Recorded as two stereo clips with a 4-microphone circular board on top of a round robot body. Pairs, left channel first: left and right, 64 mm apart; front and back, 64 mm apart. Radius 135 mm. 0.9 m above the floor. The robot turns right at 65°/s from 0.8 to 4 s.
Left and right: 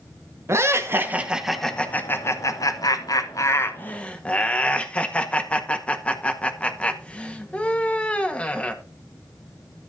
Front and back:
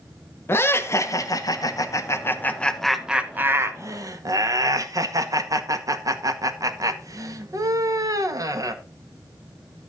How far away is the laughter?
About 2.0 m.